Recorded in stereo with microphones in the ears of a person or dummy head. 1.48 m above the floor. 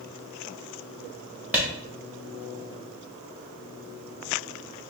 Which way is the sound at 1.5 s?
10° right (ahead or behind).